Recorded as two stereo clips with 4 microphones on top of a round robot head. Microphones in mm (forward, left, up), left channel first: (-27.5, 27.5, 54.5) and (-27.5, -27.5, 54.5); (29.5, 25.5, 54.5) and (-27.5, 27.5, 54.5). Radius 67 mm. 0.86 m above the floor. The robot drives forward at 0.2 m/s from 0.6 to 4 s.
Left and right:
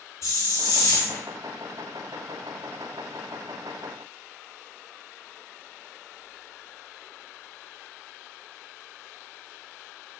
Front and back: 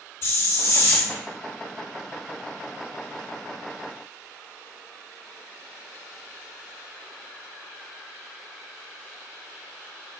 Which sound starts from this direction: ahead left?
A hiss, at 0.2 s.